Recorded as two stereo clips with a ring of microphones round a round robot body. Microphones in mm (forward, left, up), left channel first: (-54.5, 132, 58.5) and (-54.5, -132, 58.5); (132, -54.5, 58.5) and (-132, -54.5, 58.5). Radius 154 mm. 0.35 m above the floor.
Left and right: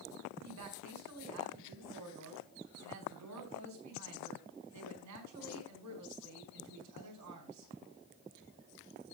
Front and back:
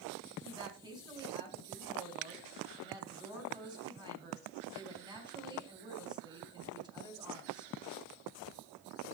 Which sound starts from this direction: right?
A woman speaking, at 0.4 s.